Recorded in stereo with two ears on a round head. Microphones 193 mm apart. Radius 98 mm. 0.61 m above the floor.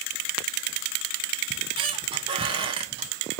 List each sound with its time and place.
1.5 s a squeak: 25° right (ahead or behind), 0.5 m